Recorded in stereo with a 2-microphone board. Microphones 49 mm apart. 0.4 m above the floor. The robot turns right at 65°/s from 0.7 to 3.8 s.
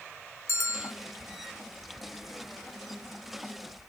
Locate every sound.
0.5 s a bell: 70° left (ahead or behind), 1.3 m; by 0.9 s 55° left (ahead or behind), 1.3 m